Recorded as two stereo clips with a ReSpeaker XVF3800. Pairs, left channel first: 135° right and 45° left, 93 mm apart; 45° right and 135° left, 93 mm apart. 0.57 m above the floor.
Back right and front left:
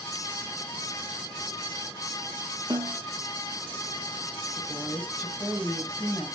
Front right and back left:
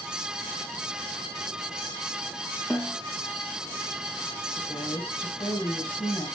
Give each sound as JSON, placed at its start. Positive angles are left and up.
{"t": 2.7, "sound": "a snare drum", "azimuth_deg": 25, "distance_m": 2.5}
{"t": 4.6, "sound": "a woman speaking", "azimuth_deg": -60, "distance_m": 2.5}